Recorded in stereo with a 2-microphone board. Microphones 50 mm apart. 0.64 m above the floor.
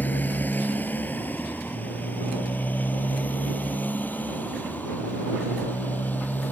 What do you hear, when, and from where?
0.0 s a motorcycle: 35° left (ahead or behind)